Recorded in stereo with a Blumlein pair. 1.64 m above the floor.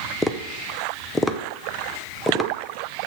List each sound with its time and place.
0.2 s tapping: 5° left, 0.8 m